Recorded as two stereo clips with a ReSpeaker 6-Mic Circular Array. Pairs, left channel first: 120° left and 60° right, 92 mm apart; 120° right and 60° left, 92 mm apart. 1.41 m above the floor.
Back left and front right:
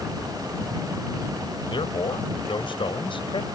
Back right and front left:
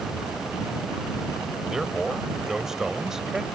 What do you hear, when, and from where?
1.7 s a man speaking: 145° left